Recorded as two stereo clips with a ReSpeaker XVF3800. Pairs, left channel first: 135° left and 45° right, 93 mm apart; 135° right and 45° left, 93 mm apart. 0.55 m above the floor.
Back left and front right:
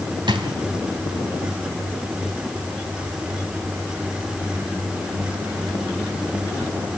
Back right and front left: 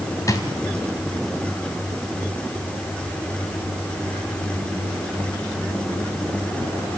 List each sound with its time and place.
0.3 s a drawer: 80° right, 2.5 m